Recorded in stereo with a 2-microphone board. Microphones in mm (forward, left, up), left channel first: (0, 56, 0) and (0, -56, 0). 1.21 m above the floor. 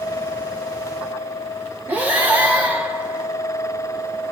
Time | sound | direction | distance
1.9 | breathing | 15° right (ahead or behind) | 1.1 m